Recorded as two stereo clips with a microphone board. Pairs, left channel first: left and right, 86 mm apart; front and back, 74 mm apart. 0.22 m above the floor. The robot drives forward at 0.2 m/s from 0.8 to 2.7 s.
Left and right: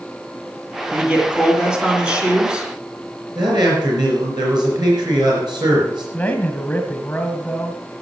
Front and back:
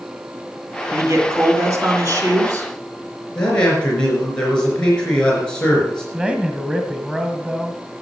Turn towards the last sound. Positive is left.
turn(degrees=135)